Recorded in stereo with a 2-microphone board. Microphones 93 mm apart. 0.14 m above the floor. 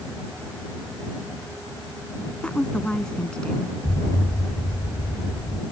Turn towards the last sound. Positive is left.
turn(degrees=70)  # may be behind; listen again after turning